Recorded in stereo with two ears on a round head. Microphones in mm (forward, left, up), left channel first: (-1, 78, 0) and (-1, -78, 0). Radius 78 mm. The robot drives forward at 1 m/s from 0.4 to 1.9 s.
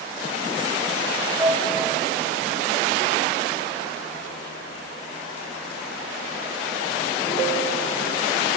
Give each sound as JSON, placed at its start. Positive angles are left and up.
{"t": 1.4, "sound": "a piano", "side_deg": -20, "distance_m": 1.3}